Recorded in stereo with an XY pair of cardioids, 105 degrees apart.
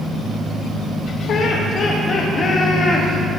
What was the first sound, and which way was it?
Laughter, 65° left.